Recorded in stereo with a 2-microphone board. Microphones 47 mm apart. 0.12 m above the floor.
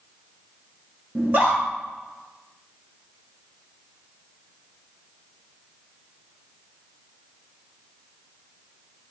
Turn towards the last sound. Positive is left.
turn(degrees=-45)  # may be behind; listen again after turning